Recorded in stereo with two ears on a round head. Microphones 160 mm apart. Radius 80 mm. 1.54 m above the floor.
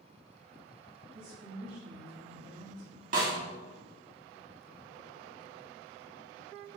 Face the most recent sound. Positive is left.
turn(degrees=-45)  # may be behind; listen again after turning